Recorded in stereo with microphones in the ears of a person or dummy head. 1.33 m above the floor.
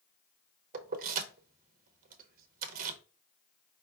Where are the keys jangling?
50° right (ahead or behind), 0.8 m.